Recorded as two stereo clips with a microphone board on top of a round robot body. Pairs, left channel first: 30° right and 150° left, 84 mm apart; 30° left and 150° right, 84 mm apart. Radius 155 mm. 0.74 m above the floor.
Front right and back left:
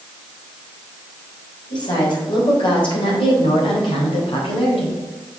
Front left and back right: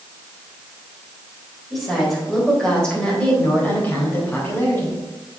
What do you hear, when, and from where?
1.7 s a woman speaking: 60° right, 4 m; by 5.0 s 30° right, 4.5 m